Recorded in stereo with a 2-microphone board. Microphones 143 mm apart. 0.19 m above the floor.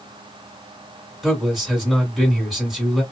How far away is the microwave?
No microwave in this recording.